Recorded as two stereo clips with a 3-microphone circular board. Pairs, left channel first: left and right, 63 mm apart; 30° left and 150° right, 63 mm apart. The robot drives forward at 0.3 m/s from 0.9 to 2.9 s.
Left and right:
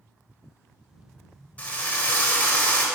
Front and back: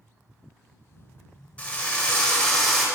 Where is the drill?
65° left, 1.1 m; by 2.9 s 115° left, 1.1 m.